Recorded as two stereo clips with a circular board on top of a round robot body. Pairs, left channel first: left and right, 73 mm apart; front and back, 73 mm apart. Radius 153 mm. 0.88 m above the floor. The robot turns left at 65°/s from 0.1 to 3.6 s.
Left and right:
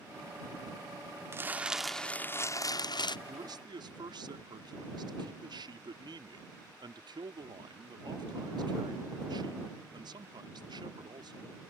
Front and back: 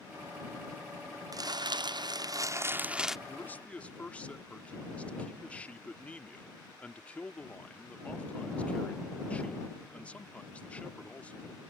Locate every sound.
1.3 s crumpling: 145° right; by 3.2 s 95° left
3.3 s a man speaking: 50° right; by 11.6 s 70° right